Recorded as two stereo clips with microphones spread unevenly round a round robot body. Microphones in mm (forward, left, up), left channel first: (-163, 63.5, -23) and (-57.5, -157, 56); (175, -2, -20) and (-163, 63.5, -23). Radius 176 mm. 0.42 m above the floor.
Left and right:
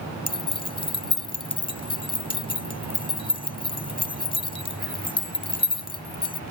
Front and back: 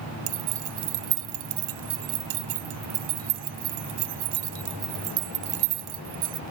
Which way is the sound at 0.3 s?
Straight behind.